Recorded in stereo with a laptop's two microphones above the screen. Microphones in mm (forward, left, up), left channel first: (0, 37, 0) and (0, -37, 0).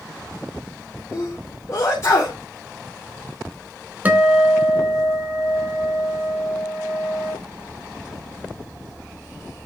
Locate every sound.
1.1 s a sneeze: 45° left (ahead or behind), 2.5 m
4.0 s a guitar: 20° right (ahead or behind), 4 m